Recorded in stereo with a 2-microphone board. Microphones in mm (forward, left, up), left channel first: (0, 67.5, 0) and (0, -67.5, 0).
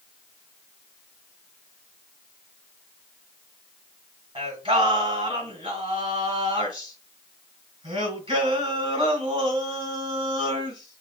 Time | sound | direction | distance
4.3 | singing | 40° right (ahead or behind) | 2 m